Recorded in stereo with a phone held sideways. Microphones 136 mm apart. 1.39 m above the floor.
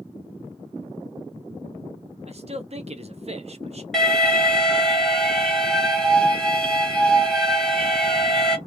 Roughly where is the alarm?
Centre.